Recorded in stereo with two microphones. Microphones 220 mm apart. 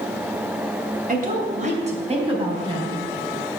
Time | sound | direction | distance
1.1 | a woman speaking | 40° right (ahead or behind) | 2 m